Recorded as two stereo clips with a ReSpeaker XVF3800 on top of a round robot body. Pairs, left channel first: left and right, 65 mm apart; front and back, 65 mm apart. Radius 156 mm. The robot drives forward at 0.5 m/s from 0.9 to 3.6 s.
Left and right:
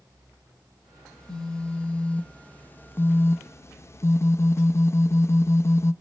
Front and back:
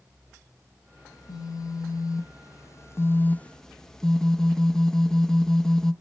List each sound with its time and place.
1.1 s a phone buzzing: 10° left, 1.4 m; by 5.9 s 80° left, 0.5 m